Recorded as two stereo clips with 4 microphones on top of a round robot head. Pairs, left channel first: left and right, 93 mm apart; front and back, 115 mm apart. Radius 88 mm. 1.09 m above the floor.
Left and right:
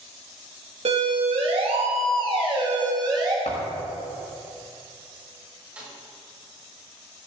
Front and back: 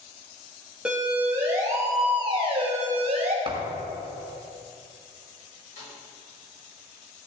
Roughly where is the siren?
Right.